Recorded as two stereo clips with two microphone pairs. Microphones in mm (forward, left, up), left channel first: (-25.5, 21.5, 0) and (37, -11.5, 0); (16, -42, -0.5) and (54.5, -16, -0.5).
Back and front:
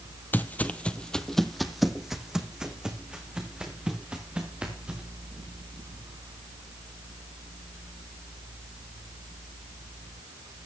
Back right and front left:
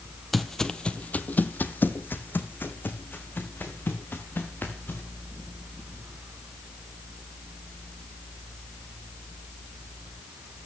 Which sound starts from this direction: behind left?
Footsteps, at 0.3 s.